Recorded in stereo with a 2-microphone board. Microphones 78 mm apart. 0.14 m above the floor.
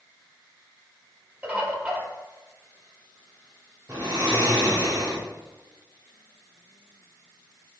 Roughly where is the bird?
Right.